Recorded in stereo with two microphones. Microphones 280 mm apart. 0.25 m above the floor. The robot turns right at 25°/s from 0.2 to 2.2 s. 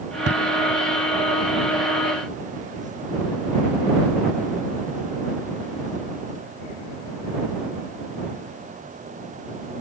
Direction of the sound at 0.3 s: 55° right (ahead or behind).